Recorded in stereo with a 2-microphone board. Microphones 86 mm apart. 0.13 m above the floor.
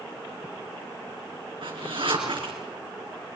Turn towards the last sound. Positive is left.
turn(degrees=-70)  # may be behind; listen again after turning